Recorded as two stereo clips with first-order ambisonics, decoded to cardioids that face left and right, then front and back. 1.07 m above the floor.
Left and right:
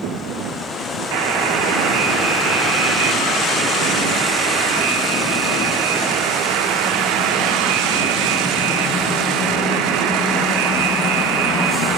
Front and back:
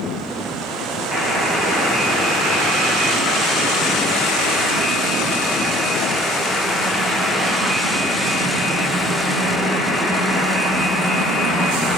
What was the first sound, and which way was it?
A buzzer, 80° right.